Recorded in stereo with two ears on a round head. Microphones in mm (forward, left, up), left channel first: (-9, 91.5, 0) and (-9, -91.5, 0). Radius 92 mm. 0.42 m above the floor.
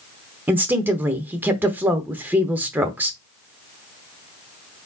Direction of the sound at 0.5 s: 10° right (ahead or behind).